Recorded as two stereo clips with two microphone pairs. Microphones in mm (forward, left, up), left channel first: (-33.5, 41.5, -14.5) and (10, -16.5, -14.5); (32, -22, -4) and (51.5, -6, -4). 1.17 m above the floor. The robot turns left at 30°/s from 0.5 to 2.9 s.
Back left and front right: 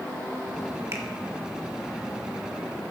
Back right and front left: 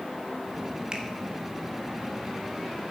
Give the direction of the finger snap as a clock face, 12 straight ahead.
12 o'clock.